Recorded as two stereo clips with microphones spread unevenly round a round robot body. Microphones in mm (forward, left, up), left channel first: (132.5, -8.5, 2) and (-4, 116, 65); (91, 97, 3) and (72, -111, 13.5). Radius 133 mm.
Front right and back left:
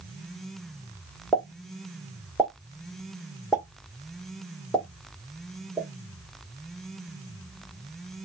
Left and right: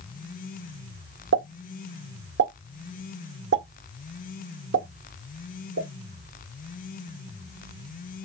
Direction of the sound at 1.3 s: 115° right.